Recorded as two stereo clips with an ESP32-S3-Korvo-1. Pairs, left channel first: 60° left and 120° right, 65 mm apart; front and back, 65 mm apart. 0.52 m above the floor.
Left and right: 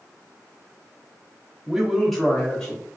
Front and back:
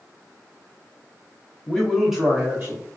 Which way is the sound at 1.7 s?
55° right.